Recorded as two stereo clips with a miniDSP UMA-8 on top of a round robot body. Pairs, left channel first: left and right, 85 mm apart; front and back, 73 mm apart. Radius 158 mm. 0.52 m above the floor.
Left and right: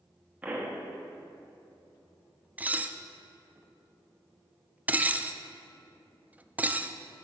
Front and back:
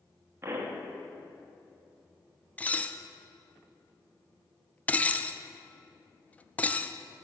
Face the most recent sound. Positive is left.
turn(degrees=-45)